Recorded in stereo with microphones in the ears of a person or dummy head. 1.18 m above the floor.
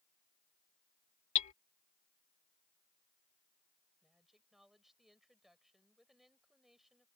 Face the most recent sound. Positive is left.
turn(degrees=0)  # may be behind; listen again after turning